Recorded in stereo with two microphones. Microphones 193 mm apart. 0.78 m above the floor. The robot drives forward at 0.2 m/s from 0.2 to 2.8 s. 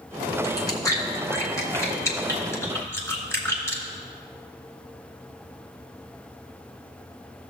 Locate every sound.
0.4 s chewing: 20° left (ahead or behind), 1.1 m; by 3.8 s 15° left (ahead or behind), 1.5 m